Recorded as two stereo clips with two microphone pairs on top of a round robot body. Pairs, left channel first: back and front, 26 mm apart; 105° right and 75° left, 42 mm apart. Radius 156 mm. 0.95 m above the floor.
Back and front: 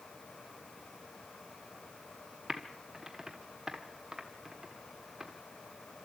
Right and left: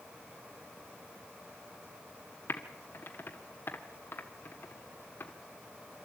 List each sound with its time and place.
2.5 s typing on a keyboard: 65° right, 1.4 m